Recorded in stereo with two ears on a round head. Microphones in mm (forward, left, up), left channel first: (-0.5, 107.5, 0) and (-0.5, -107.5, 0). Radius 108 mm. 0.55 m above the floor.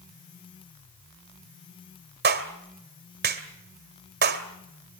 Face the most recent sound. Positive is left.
turn(degrees=-45)  # may be behind; listen again after turning